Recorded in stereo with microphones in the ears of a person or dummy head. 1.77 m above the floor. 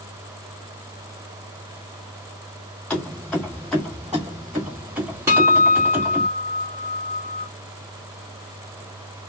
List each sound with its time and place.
2.9 s keys jangling: 10° left (ahead or behind), 1.2 m; by 6.3 s 10° right (ahead or behind), 1.4 m
5.3 s a guitar: 10° right (ahead or behind), 1.4 m